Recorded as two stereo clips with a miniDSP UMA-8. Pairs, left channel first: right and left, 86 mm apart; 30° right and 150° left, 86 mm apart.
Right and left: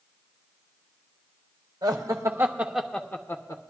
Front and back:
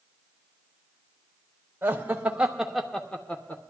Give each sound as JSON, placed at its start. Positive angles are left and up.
{"t": 1.8, "sound": "laughter", "azimuth_deg": 90, "distance_m": 1.1}